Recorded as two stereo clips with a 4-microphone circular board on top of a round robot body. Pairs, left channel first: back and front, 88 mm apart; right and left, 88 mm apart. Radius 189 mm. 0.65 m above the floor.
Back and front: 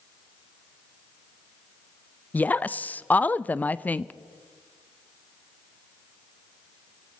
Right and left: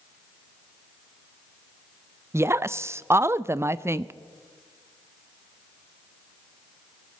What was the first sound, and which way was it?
A woman speaking, 120° left.